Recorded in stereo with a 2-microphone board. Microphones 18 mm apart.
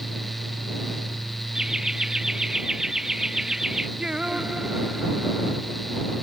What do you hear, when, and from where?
1.6 s laughter: 40° right (ahead or behind); by 3.9 s 30° right (ahead or behind)
4.0 s singing: 60° right (ahead or behind)